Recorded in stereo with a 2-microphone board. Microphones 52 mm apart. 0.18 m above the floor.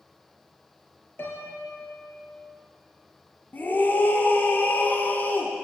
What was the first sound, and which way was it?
A piano, 45° left (ahead or behind).